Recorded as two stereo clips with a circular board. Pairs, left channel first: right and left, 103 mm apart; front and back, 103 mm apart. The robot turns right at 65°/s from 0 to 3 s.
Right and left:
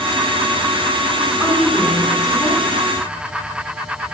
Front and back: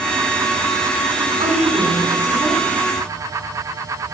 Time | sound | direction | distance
1.4 | a woman speaking | 165° left | 3.5 m